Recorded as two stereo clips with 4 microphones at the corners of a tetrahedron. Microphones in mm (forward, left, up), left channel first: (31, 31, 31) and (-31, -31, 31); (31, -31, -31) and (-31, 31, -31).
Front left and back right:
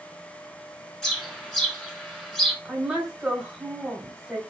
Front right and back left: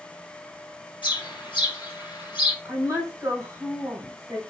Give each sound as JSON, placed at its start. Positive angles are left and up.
{"t": 1.0, "sound": "a bird", "azimuth_deg": -40, "distance_m": 1.5}
{"t": 2.6, "sound": "a woman speaking", "azimuth_deg": 145, "distance_m": 1.3}